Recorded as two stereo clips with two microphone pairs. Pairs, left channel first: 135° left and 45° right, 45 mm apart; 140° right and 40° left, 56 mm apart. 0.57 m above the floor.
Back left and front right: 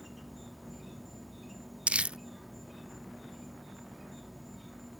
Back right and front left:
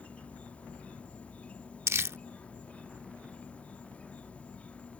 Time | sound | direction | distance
0.0 | an insect | 135° right | ?
1.9 | crumpling | 10° left | ?